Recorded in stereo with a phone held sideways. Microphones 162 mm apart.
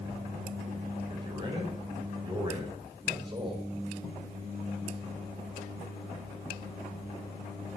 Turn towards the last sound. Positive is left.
turn(degrees=-30)  # may be behind; listen again after turning